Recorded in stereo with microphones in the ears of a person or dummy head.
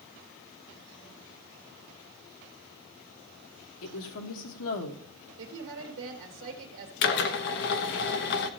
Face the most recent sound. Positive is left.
turn(degrees=60)  # may be behind; listen again after turning